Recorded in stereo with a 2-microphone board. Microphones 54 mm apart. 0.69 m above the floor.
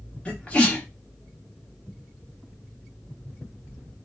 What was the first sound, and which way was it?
A sneeze, 25° left (ahead or behind).